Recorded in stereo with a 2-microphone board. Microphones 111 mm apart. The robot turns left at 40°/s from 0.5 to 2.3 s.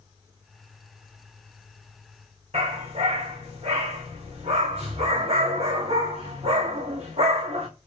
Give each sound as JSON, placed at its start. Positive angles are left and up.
{"t": 2.5, "sound": "a dog barking", "side_deg": -75, "distance_m": 3.5}